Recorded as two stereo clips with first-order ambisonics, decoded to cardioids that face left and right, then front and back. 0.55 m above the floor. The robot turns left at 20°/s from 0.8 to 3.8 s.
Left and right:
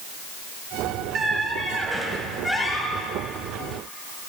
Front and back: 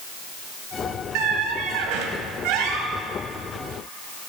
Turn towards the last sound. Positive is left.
turn(degrees=145)